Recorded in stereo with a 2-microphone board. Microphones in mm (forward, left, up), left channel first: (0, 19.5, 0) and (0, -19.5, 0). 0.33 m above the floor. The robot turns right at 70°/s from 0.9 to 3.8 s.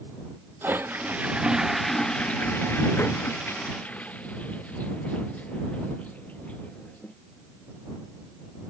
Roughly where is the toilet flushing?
Ahead right.